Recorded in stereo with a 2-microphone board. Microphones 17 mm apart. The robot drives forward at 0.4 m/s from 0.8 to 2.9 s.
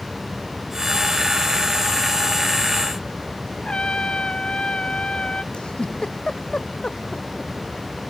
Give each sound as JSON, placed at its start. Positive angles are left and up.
{"t": 3.6, "sound": "a trumpet", "side_deg": 75}
{"t": 5.5, "sound": "a giggle", "side_deg": 75}